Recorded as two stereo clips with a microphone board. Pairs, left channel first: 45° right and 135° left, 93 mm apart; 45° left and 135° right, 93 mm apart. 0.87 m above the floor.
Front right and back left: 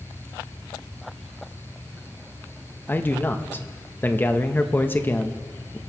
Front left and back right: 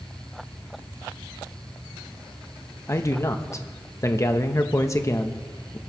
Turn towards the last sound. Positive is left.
turn(degrees=10)